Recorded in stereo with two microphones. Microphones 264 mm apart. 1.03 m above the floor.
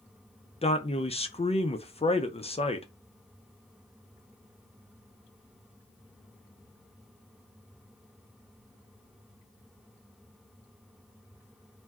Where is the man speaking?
25° left (ahead or behind), 0.5 m.